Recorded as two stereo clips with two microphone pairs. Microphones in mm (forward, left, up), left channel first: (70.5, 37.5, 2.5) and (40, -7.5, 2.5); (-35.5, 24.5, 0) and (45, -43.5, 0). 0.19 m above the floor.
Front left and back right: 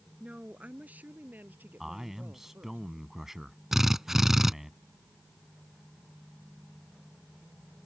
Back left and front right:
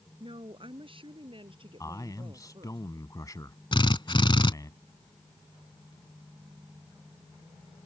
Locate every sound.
0.2 s a woman speaking: 60° right; by 2.8 s 75° right
1.8 s a man speaking: 155° left
3.7 s a drill: 150° left